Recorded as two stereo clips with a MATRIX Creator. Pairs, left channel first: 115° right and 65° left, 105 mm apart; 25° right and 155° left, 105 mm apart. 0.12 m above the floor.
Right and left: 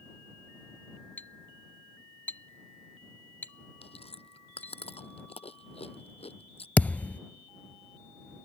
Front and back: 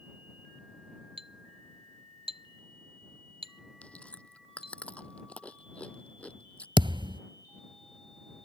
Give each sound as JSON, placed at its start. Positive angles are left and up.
{"t": 1.2, "sound": "a clink", "azimuth_deg": 175}
{"t": 3.8, "sound": "chewing", "azimuth_deg": -100}
{"t": 6.8, "sound": "a thud", "azimuth_deg": 175}